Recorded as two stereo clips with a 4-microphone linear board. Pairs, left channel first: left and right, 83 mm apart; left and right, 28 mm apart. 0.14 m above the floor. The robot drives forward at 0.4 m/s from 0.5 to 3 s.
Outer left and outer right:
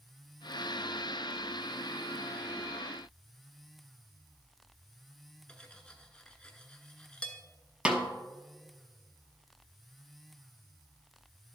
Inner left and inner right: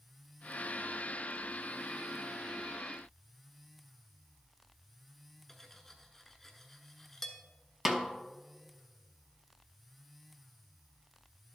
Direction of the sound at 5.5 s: 10° left (ahead or behind).